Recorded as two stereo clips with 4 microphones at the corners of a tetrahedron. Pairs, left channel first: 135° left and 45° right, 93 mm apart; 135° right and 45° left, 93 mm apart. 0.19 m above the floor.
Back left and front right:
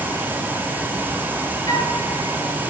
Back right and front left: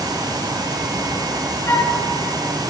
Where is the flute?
170° left, 1.8 m.